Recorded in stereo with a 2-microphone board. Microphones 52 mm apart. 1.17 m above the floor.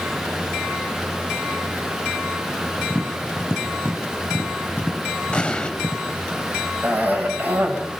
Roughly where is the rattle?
I don't hear a rattle.